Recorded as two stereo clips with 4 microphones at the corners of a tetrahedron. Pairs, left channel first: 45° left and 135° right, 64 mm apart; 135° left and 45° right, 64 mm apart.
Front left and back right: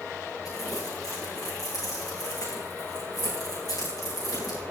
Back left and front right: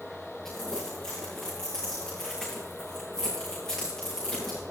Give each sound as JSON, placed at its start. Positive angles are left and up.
{"t": 0.5, "sound": "crumpling", "azimuth_deg": 55, "distance_m": 8.5}